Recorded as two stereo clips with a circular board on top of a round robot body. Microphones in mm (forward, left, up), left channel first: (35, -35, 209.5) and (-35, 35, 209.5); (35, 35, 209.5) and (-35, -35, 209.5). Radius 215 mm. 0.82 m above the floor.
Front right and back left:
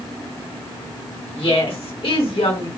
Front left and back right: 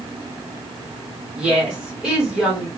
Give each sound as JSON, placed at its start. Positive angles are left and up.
{"t": 1.4, "sound": "a woman speaking", "azimuth_deg": -55, "distance_m": 2.0}